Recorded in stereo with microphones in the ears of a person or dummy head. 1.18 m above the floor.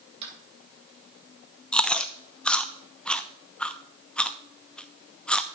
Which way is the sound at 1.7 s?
5° left (ahead or behind).